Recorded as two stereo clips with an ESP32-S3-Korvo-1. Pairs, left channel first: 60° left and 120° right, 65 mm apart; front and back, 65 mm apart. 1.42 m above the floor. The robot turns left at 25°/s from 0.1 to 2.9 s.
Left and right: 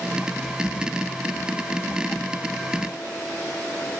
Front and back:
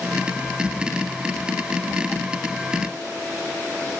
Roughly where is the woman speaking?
No woman speaking in this recording.